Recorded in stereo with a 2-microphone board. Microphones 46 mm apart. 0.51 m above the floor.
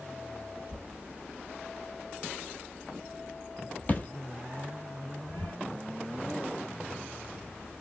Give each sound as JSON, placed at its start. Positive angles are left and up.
{"t": 0.7, "sound": "a thud", "side_deg": 35, "distance_m": 0.7}